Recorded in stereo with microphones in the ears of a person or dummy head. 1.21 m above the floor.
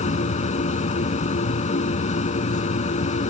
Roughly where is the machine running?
Left.